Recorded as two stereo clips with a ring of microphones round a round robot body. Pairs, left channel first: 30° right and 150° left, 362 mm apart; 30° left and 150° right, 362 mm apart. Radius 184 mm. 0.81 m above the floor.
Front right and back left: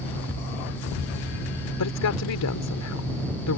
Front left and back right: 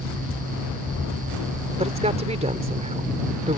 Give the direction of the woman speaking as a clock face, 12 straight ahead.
3 o'clock.